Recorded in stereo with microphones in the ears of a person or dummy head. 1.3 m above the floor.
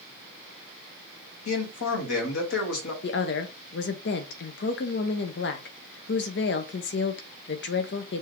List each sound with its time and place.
1.4 s a man speaking: 70° left (ahead or behind), 2.0 m
3.0 s a woman speaking: 55° left (ahead or behind), 0.8 m